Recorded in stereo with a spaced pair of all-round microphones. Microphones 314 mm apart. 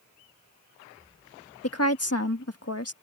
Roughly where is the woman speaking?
Left.